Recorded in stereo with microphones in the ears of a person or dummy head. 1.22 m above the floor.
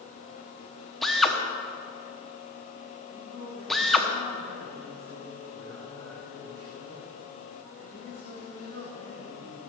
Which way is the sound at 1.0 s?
Centre (ahead or behind).